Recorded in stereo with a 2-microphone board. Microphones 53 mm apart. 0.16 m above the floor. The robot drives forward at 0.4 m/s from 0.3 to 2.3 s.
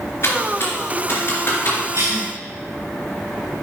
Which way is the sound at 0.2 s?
55° left (ahead or behind).